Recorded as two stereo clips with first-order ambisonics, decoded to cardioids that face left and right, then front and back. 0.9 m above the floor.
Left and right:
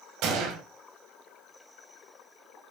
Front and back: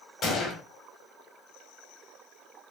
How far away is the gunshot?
About 1.8 m.